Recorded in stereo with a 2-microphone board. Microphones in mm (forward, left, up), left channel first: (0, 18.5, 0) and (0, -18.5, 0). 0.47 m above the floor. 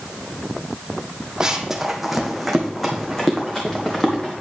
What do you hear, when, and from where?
1.4 s running footsteps: 20° right (ahead or behind), 1.0 m; by 4.3 s 15° left (ahead or behind), 2.5 m